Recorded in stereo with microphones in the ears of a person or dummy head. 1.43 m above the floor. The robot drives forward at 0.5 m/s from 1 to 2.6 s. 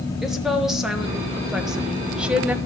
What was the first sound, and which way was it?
A woman speaking, 5° right (ahead or behind).